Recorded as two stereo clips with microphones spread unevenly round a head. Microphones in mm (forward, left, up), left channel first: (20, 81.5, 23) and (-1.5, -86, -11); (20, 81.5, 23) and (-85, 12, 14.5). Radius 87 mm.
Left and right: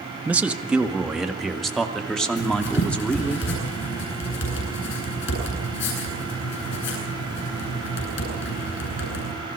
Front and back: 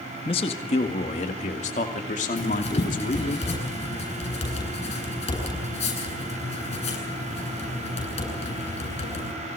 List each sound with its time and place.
0.2 s a man speaking: 20° right, 1.7 m; by 3.4 s 5° right, 3 m
2.4 s writing: 70° left, 10 m